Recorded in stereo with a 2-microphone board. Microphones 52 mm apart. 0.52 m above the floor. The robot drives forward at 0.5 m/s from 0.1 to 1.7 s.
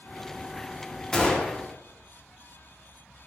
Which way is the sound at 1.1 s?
20° left (ahead or behind).